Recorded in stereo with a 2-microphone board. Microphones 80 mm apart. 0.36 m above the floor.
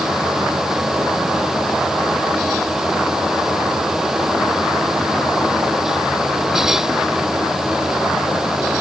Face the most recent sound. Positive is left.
No sound to turn to.